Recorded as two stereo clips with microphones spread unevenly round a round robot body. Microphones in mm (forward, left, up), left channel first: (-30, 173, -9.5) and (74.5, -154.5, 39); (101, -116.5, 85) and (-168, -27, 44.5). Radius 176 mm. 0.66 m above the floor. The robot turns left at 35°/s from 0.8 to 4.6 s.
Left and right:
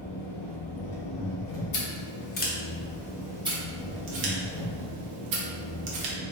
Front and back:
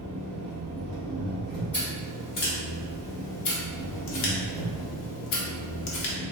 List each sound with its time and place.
0.0 s an engine running: 115° left, 1.1 m; by 6.3 s 20° right, 1.1 m
1.7 s scissors: 70° left, 0.8 m; by 6.2 s 35° right, 0.8 m